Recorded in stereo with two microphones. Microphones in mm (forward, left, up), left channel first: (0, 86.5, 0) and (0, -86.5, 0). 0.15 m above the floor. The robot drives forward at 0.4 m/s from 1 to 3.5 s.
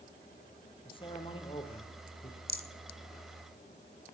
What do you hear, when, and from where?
0.8 s a man speaking: 30° left (ahead or behind), 4 m; by 2.4 s 35° left (ahead or behind), 3.5 m
2.5 s a rattle: 65° right (ahead or behind), 0.8 m; by 2.7 s 60° right (ahead or behind), 0.8 m